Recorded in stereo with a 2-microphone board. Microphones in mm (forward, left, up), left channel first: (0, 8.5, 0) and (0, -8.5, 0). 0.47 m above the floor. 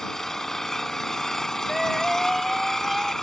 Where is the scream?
Centre (ahead or behind).